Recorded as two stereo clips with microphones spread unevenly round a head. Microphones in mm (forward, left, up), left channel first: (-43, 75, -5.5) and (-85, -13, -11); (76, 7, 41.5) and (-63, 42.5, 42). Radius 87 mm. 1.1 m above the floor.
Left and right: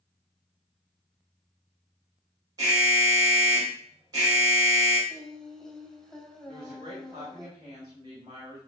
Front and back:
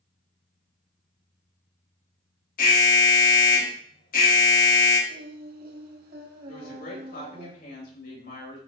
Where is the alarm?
45° right, 3 m.